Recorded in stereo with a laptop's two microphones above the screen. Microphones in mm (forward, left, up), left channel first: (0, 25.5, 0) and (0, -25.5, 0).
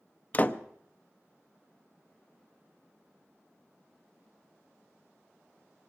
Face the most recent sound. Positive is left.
turn(degrees=30)  # may be behind; listen again after turning